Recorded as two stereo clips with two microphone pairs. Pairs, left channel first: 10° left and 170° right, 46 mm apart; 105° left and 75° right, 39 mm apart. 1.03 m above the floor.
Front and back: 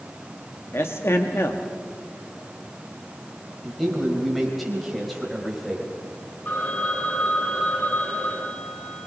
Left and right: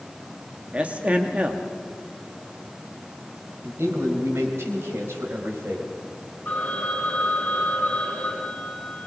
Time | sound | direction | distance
0.7 | a man speaking | 20° right | 1.4 m
3.6 | a man speaking | 80° right | 5.5 m
6.5 | a phone ringing | 55° left | 7.5 m